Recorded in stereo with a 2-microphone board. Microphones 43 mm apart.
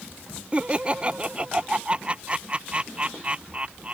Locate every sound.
0.5 s laughter: 25° right (ahead or behind)